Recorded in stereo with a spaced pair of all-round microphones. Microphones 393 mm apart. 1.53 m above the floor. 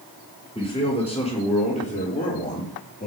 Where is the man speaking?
15° left (ahead or behind), 6.5 m; by 3.1 s 20° left (ahead or behind), 7.5 m.